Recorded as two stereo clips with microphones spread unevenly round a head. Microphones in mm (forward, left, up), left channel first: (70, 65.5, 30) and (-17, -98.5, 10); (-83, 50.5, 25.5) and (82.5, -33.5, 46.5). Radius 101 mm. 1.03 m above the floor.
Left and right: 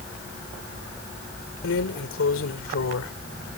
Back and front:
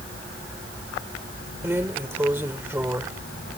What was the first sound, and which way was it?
A drawer, 50° left.